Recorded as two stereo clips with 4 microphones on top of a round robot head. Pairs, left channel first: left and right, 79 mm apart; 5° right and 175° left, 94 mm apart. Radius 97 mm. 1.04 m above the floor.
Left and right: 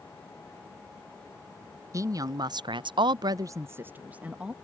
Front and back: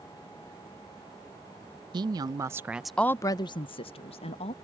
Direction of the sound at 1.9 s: 140° right.